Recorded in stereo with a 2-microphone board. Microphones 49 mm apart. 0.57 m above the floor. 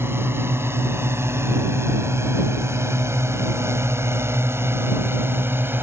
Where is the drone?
55° right (ahead or behind); by 5.8 s 50° right (ahead or behind).